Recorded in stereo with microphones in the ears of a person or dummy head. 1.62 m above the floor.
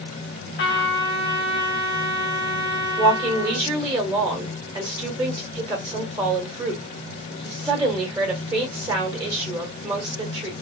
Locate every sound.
0.6 s a trumpet: 60° left (ahead or behind), 2.5 m
3.0 s a woman speaking: 25° right (ahead or behind), 1.5 m